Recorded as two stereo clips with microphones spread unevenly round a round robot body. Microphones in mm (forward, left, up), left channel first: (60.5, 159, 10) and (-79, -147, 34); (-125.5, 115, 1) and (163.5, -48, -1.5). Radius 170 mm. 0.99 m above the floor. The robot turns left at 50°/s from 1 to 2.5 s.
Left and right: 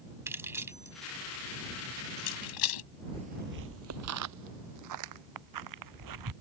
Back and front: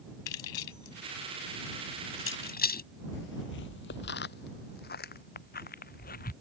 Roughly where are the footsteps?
Behind.